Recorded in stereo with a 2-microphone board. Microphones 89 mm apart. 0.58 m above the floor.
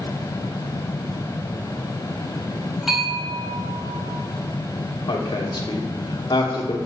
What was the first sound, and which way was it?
A bell, 5° right (ahead or behind).